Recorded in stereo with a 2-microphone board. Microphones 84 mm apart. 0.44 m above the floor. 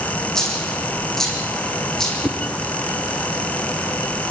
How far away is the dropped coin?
About 6 m.